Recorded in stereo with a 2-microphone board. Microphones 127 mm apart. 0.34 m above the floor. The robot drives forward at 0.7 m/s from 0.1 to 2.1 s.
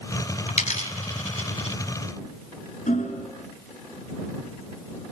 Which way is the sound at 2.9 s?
70° left (ahead or behind).